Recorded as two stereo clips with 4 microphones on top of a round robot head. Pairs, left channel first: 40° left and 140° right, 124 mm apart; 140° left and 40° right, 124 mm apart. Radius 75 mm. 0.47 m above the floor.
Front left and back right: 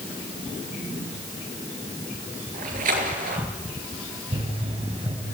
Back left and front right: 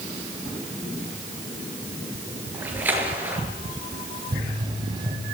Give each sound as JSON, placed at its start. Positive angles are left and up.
{"t": 2.5, "sound": "a splash", "azimuth_deg": -120, "distance_m": 6.0}
{"t": 4.3, "sound": "a pop", "azimuth_deg": -100, "distance_m": 4.5}